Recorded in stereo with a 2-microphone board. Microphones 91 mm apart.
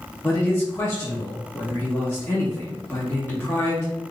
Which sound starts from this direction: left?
A man speaking, at 0.2 s.